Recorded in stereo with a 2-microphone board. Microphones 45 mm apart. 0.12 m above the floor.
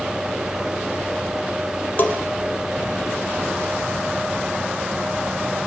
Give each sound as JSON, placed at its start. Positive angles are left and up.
{"t": 2.0, "sound": "a bell", "side_deg": 40, "distance_m": 4.0}